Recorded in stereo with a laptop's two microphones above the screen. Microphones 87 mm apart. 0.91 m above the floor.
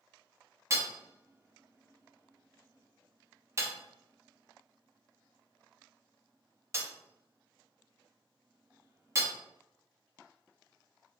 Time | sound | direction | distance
0.7 | hammering | 30° right (ahead or behind) | 0.5 m